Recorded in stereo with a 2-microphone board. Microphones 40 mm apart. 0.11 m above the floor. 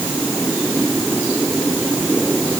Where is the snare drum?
No snare drum in this recording.